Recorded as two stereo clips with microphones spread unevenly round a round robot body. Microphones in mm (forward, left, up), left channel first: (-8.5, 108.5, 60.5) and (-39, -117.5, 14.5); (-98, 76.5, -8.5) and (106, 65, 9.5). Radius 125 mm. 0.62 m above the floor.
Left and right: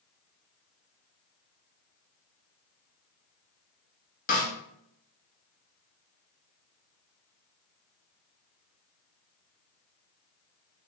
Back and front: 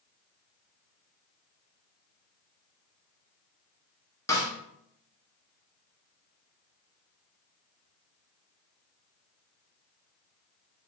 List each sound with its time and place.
4.3 s a snare drum: 125° left, 1.0 m